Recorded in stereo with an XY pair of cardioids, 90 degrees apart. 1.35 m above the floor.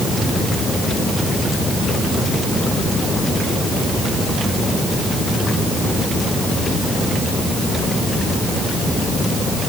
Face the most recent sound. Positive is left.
No sound to turn to.